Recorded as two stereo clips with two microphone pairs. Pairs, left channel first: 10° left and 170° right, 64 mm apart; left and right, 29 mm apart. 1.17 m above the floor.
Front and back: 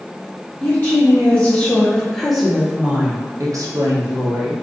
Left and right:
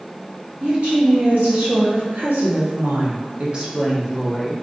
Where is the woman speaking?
55° right, 1.5 m; by 4.5 s straight behind, 0.8 m.